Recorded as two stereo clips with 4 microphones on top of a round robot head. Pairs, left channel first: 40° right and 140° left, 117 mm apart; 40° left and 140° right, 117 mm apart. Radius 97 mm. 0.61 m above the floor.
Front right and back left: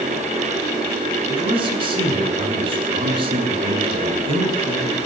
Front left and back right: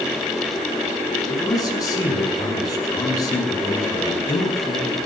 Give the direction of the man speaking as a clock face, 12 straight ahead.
9 o'clock.